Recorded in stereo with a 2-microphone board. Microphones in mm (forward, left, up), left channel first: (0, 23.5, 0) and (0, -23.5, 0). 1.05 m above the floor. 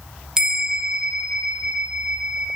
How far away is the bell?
About 0.5 m.